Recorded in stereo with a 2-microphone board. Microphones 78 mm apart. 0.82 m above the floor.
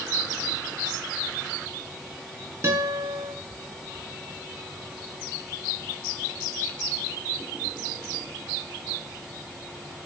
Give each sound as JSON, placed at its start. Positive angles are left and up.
{"t": 2.6, "sound": "a guitar", "side_deg": -35, "distance_m": 4.5}